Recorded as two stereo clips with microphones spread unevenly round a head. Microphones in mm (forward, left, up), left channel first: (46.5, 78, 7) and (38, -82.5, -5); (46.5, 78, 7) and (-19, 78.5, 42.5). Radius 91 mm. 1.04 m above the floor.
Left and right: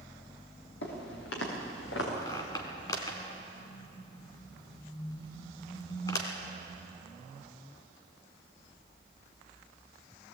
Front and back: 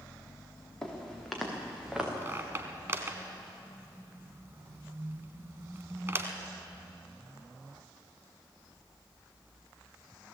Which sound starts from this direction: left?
Footsteps, at 0.8 s.